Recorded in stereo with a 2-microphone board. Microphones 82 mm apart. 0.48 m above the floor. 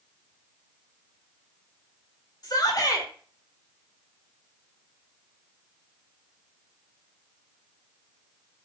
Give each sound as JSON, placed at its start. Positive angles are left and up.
{"t": 2.4, "sound": "a shout", "side_deg": 50, "distance_m": 1.7}